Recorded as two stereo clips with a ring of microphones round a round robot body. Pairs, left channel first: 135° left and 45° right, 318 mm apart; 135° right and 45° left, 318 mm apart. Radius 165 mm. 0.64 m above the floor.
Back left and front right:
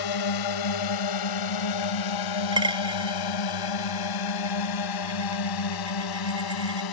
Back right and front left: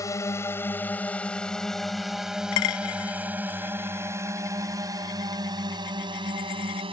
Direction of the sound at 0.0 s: 145° left.